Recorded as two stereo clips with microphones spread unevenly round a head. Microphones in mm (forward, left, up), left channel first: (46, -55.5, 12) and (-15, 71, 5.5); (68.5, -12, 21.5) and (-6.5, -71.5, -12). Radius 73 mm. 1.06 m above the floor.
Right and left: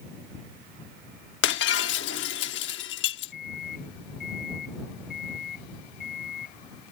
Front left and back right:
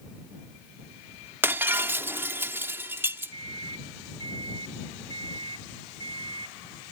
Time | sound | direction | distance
1.4 | breaking glass | 70° right | ?
3.3 | a microwave | 105° right | ?